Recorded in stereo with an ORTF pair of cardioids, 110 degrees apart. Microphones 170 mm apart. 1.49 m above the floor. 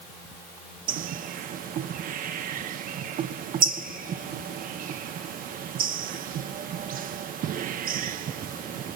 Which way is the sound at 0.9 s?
55° right.